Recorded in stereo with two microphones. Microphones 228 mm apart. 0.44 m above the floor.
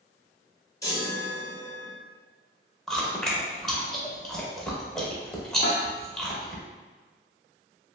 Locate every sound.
0.8 s a chime: 15° left (ahead or behind), 0.8 m
2.9 s chewing: centre (ahead or behind), 0.7 m
5.6 s a snare drum: 45° left (ahead or behind), 0.5 m